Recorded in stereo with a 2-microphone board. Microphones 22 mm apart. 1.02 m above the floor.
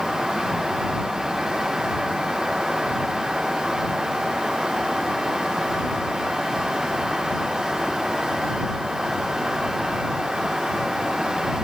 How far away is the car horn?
No car horn in this recording.